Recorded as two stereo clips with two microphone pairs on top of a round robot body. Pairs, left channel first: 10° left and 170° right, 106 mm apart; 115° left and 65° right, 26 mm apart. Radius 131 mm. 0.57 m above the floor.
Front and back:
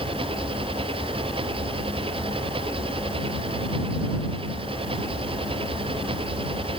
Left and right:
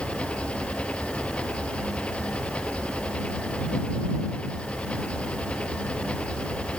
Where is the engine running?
155° left.